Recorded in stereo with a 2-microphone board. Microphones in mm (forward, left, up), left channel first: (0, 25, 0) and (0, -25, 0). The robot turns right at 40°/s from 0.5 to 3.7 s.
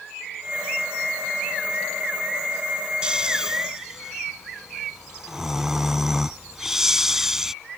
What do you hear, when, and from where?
3.0 s snoring: 20° right (ahead or behind); by 7.5 s 10° right (ahead or behind)